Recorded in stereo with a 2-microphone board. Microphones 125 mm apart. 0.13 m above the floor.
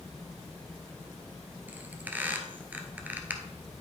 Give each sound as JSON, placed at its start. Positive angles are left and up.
{"t": 1.7, "sound": "a squeak", "side_deg": -15, "distance_m": 1.1}